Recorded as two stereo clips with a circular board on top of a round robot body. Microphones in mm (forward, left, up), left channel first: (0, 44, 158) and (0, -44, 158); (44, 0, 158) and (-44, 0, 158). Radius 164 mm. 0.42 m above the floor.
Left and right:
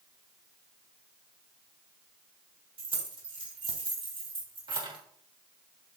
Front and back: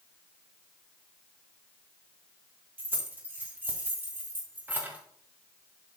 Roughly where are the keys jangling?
Right.